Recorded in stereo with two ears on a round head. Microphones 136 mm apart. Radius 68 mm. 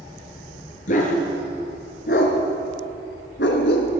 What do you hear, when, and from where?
0.9 s a dog barking: 55° left (ahead or behind), 3 m; by 3.9 s 80° left, 2 m